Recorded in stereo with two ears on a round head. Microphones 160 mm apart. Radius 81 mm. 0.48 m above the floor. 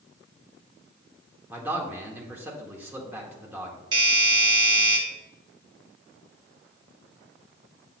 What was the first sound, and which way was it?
A man speaking, 10° right (ahead or behind).